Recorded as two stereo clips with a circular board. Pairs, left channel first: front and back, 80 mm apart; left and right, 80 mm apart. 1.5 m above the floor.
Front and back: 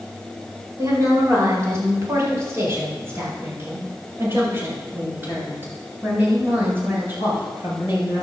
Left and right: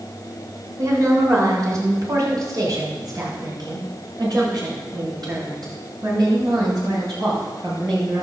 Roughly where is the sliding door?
No sliding door in this recording.